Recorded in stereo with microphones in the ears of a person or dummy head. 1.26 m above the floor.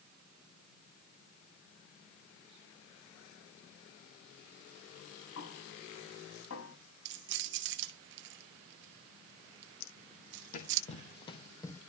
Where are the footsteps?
60° left (ahead or behind), 2.5 m; by 11.8 s 15° left (ahead or behind), 2.5 m.